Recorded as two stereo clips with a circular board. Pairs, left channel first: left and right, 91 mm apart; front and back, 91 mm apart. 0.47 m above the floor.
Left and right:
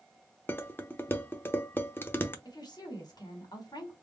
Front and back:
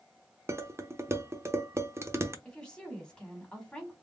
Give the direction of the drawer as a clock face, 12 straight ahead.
No drawer in this recording.